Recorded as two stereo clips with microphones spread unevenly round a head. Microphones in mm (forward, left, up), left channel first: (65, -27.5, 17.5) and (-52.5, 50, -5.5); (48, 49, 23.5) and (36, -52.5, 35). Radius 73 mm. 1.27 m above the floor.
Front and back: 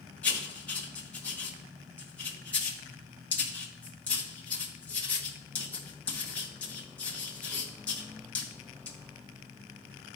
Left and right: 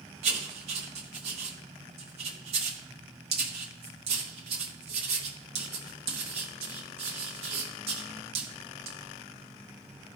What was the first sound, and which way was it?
Writing, 105° right.